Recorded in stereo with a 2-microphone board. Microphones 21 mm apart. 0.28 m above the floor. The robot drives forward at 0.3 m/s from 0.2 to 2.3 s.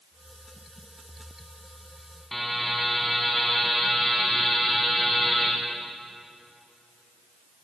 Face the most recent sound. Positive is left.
turn(degrees=10)  # may be behind; listen again after turning